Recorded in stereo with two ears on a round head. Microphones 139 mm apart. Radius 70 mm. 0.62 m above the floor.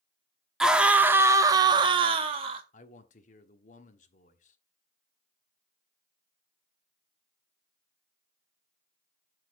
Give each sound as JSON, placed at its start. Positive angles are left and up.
{"t": 0.6, "sound": "a scream", "side_deg": -5, "distance_m": 1.0}
{"t": 2.7, "sound": "a man speaking", "side_deg": 55, "distance_m": 1.2}